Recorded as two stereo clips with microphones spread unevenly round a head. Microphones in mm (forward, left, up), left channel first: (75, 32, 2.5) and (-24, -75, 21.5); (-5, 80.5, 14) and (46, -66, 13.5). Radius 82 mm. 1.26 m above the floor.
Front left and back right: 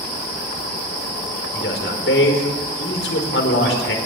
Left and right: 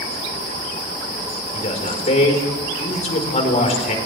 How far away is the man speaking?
About 4.5 m.